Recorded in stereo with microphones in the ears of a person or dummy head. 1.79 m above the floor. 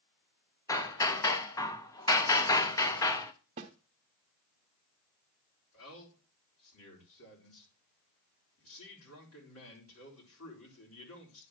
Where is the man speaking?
85° left, 4 m.